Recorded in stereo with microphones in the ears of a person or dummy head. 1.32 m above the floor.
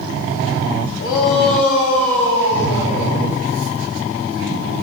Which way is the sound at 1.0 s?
60° left (ahead or behind).